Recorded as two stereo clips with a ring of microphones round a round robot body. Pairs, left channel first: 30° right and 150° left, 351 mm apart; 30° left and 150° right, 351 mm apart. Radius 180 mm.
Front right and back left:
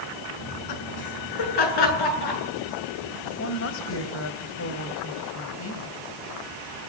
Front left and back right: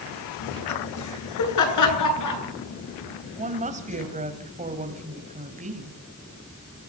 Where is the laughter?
10° right, 6.5 m; by 4.1 s 5° right, 10.5 m.